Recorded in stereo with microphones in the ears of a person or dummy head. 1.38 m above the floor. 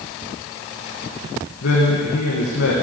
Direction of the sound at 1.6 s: 65° left (ahead or behind).